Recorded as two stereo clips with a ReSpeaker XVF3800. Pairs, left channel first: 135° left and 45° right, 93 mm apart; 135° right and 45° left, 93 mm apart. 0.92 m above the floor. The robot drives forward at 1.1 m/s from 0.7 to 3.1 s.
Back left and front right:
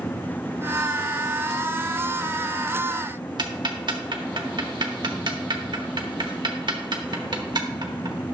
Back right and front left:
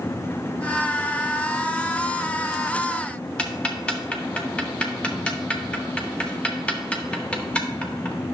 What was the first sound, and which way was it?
Ticking, 60° right.